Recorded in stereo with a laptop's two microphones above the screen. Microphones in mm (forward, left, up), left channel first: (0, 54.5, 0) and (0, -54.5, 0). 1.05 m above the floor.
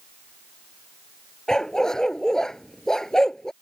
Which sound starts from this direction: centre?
A dog barking, at 1.5 s.